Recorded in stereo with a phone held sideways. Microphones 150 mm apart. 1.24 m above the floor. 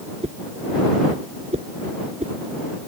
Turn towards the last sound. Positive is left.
turn(degrees=-50)  # may be behind; listen again after turning